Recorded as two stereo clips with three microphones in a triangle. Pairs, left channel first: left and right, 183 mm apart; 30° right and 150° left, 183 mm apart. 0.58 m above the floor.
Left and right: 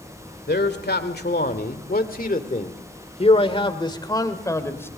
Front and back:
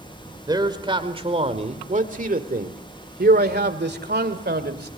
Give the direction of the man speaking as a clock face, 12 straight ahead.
9 o'clock.